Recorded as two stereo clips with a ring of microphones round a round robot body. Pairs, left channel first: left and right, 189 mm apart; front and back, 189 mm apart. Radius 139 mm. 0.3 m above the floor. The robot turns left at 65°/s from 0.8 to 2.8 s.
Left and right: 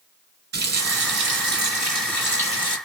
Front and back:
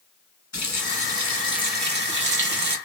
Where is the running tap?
70° right, 1.6 m; by 2.8 s 160° left, 1.6 m.